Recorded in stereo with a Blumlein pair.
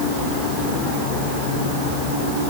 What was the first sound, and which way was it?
Only background noise.